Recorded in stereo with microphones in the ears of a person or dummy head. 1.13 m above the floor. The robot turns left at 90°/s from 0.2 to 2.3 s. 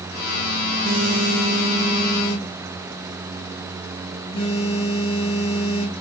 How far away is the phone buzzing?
About 0.6 m.